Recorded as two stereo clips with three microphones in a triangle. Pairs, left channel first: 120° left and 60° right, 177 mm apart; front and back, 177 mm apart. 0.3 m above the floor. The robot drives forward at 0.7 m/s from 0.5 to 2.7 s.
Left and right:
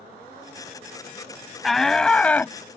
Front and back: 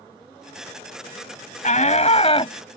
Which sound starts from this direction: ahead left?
A shout, at 1.6 s.